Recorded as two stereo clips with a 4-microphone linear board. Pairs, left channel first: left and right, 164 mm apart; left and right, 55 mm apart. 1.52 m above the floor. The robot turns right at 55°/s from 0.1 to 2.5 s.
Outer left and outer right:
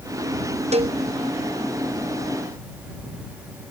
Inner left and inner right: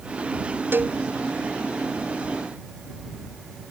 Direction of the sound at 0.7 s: 40° right (ahead or behind).